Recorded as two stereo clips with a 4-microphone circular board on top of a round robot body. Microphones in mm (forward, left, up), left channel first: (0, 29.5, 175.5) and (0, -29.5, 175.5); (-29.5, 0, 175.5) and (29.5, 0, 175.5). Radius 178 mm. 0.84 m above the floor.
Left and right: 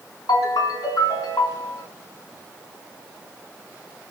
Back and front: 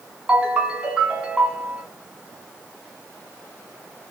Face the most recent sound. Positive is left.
turn(degrees=75)